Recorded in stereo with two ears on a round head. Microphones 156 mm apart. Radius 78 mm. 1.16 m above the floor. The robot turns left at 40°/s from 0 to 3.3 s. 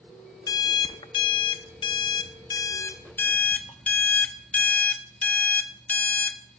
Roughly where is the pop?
I don't hear a pop.